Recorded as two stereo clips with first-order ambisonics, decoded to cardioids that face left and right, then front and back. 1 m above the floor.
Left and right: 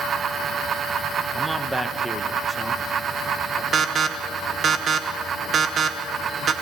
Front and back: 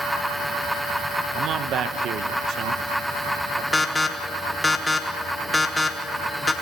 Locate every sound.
1.4 s a man speaking: 175° right, 1.0 m
3.7 s an alarm: 70° right, 1.1 m